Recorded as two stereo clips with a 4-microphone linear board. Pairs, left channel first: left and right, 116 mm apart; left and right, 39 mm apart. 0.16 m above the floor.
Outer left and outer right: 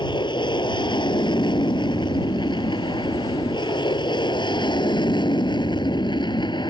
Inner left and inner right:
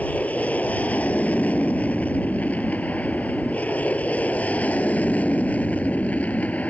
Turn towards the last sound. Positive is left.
turn(degrees=40)  # may be behind; listen again after turning